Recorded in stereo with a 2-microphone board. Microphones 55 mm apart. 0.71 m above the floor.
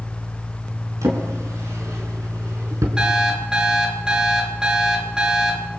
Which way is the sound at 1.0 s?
65° right (ahead or behind).